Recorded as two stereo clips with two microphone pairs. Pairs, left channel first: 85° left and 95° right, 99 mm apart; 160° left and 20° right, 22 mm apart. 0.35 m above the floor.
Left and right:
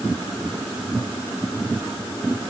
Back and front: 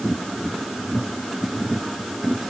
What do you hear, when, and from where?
Only background noise.